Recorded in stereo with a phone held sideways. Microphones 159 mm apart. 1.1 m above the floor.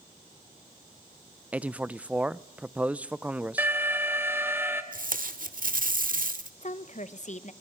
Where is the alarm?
15° right (ahead or behind), 2 m.